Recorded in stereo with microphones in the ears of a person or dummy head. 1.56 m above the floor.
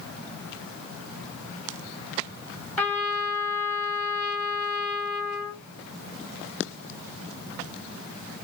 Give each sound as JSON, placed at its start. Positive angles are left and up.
{"t": 2.8, "sound": "a trumpet", "side_deg": 10, "distance_m": 1.3}